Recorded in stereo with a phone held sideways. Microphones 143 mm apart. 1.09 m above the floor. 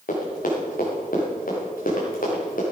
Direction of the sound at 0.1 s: 70° left (ahead or behind).